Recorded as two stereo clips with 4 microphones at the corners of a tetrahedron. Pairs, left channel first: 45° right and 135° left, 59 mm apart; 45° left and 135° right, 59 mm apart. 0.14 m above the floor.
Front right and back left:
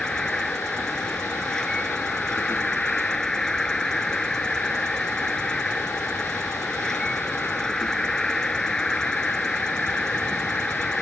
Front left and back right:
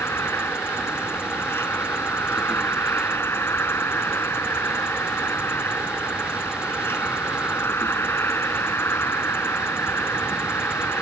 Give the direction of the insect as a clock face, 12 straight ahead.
11 o'clock.